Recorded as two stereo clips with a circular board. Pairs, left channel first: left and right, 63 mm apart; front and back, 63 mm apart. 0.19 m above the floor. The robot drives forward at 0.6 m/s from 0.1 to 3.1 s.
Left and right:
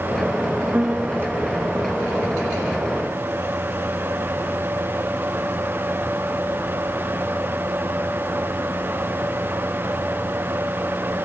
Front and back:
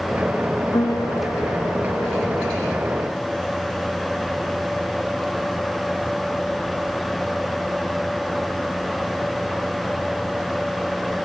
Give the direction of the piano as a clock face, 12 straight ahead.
12 o'clock.